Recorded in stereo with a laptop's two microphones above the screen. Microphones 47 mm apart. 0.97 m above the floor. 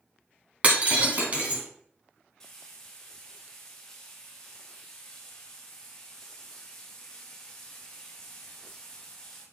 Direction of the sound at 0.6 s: 35° right (ahead or behind).